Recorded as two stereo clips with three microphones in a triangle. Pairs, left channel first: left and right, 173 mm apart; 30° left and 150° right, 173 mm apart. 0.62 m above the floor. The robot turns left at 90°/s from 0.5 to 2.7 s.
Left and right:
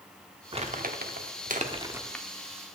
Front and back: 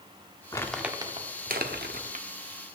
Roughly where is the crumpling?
Ahead right.